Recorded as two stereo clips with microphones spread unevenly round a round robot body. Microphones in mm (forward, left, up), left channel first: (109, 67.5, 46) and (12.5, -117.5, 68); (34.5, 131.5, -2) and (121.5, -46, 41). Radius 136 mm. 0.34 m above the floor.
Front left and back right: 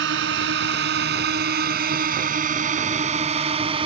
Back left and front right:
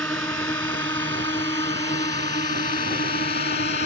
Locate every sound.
0.0 s a drone: 160° right; by 3.9 s 175° left